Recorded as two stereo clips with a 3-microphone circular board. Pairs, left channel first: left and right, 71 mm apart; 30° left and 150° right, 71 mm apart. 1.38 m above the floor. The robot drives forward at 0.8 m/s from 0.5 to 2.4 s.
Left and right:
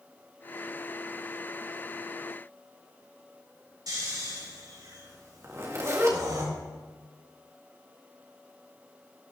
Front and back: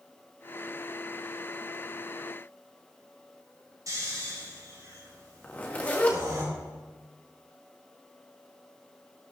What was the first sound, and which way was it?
Snoring, 115° right.